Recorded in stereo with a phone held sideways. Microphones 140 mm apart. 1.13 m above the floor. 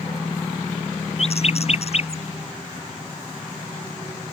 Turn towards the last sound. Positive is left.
turn(degrees=50)  # may be behind; listen again after turning